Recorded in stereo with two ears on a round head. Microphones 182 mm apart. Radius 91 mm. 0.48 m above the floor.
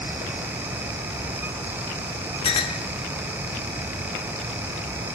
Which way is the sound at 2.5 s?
25° left (ahead or behind).